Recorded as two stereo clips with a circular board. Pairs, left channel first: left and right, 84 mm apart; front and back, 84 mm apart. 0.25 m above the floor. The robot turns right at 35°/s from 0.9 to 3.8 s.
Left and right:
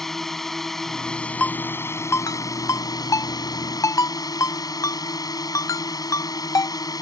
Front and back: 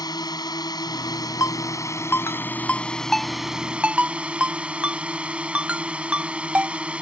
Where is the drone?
5° left; by 7.0 s 105° left.